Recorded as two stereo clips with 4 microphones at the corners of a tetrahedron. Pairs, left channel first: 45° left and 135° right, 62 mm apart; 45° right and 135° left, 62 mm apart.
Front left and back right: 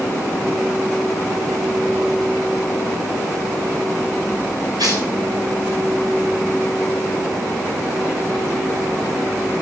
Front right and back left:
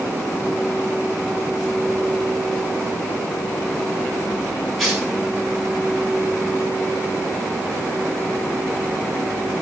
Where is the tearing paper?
130° right, 5 m.